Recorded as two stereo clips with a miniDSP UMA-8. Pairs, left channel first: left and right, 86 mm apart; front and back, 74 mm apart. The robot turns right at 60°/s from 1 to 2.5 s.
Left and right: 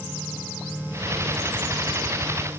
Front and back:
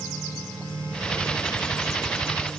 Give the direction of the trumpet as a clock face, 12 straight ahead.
I don't hear a trumpet.